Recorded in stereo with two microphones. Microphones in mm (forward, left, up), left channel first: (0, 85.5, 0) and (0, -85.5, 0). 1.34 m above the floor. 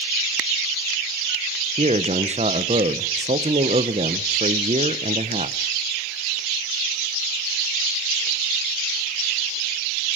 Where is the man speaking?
40° right (ahead or behind), 0.9 m.